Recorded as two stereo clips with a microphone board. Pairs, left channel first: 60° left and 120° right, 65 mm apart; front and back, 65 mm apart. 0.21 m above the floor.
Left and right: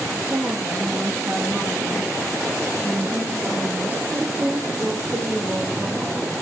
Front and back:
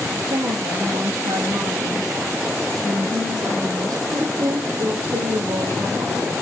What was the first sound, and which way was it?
A woman speaking, straight behind.